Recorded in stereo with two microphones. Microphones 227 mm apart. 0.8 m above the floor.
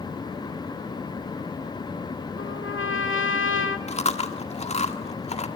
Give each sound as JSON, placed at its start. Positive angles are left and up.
{"t": 2.4, "sound": "a trumpet", "side_deg": 60, "distance_m": 2.0}
{"t": 3.9, "sound": "chewing", "side_deg": 30, "distance_m": 1.7}